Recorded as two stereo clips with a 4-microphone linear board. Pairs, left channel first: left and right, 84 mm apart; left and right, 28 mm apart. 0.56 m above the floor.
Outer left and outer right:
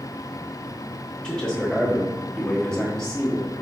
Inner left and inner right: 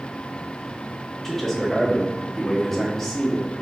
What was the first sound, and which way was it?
A man speaking, 10° left (ahead or behind).